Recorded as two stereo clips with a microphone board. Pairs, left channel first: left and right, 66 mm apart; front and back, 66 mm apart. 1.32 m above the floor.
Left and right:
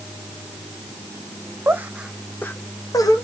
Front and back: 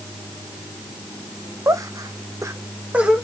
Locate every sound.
1.7 s laughter: 140° right, 0.7 m; by 3.2 s 100° left, 1.0 m